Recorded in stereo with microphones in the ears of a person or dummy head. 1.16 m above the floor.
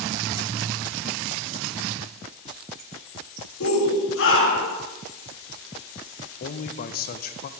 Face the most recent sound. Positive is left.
turn(degrees=40)  # may be behind; listen again after turning